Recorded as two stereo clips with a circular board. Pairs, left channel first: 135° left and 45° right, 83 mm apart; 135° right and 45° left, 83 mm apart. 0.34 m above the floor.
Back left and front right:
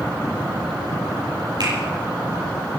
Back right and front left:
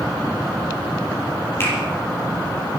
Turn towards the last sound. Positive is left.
turn(degrees=-75)